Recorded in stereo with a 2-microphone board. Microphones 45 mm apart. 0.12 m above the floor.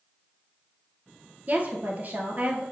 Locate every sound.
1.5 s a woman speaking: 35° right (ahead or behind), 2 m